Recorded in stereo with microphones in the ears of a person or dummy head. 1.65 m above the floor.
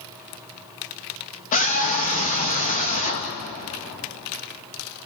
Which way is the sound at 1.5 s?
40° left (ahead or behind).